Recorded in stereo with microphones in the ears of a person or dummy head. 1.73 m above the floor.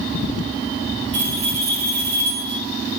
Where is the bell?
40° right (ahead or behind), 3.5 m.